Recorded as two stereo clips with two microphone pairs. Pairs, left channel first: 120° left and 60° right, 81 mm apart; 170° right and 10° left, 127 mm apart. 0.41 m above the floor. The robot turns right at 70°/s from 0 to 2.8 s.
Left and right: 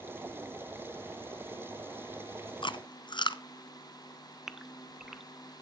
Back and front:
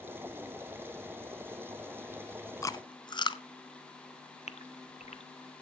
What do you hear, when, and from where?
2.6 s chewing: 125° left, 0.8 m; by 3.4 s 140° left, 0.8 m
4.5 s a gasp: 145° right, 0.7 m